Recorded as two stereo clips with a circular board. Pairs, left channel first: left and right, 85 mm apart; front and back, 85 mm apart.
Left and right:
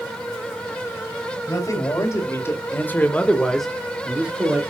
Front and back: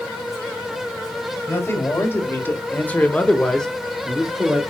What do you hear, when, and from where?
1.5 s a man speaking: 55° left, 2 m; by 4.6 s 115° right, 1.3 m